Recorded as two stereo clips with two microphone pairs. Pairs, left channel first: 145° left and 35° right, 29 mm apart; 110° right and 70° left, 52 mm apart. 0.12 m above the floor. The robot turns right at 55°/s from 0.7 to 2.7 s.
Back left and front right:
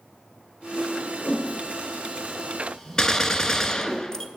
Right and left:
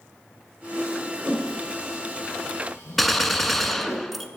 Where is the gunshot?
165° left, 0.6 m.